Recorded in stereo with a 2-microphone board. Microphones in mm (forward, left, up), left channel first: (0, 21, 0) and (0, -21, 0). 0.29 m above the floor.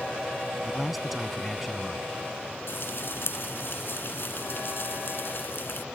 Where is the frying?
65° left (ahead or behind).